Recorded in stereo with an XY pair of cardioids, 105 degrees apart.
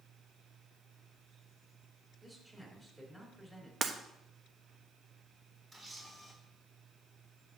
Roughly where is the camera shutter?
Ahead right.